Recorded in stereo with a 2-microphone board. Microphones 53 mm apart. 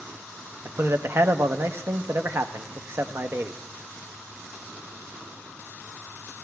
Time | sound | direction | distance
0.7 | a man speaking | 45° right (ahead or behind) | 0.6 m